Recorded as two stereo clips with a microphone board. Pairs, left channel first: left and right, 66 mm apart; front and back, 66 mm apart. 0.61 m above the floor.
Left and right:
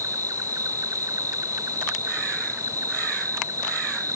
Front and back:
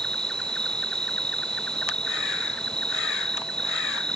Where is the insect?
75° right.